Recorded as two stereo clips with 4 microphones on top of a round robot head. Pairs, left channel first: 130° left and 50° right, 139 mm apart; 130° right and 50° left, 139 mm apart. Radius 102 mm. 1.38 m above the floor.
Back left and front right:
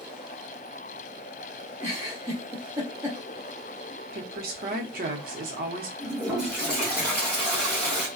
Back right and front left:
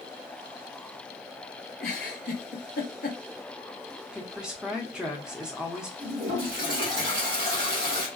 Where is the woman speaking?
35° right, 0.7 m.